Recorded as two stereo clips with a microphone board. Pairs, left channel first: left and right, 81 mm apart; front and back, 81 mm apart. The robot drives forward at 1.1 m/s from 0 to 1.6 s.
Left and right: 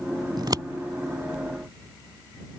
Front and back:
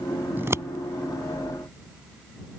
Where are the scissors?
115° right; by 0.7 s 130° right.